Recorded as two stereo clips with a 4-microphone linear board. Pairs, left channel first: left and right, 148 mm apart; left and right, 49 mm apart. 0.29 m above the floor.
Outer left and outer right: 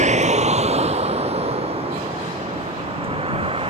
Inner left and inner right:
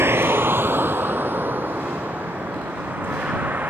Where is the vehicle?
55° right (ahead or behind); by 3.7 s 40° right (ahead or behind).